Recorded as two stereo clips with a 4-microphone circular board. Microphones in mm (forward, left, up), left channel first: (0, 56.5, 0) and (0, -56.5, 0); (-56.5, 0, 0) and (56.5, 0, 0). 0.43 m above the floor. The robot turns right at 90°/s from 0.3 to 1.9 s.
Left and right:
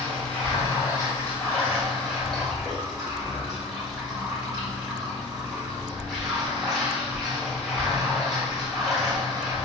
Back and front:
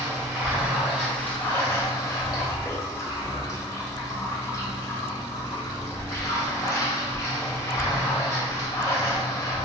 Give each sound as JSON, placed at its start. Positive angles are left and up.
{"t": 0.0, "sound": "running water", "azimuth_deg": 30, "distance_m": 1.2}